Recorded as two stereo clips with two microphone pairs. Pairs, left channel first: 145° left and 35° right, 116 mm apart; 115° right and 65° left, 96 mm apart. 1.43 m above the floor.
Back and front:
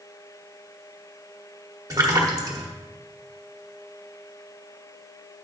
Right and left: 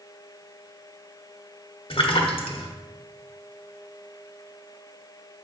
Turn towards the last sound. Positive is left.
turn(degrees=-95)